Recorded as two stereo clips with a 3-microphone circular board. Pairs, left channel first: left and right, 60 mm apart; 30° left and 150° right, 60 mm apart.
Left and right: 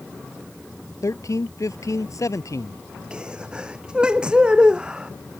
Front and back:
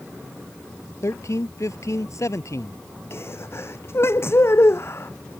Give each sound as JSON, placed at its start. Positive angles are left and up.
{"t": 1.0, "sound": "a man speaking", "azimuth_deg": 65}
{"t": 3.1, "sound": "a sneeze", "azimuth_deg": -15}